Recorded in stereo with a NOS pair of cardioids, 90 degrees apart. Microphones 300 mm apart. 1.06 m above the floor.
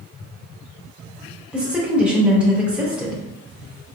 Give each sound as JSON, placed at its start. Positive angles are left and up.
{"t": 1.5, "sound": "a woman speaking", "azimuth_deg": -5, "distance_m": 1.2}